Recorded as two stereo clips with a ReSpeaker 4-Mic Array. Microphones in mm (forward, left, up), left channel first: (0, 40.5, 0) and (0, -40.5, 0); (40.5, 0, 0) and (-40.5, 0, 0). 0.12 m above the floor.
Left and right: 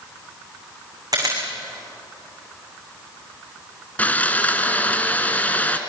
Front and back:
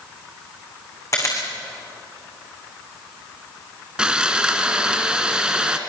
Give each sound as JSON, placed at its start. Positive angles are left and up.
{"t": 1.1, "sound": "a camera shutter", "azimuth_deg": -50, "distance_m": 5.5}
{"t": 4.0, "sound": "sawing", "azimuth_deg": 120, "distance_m": 1.6}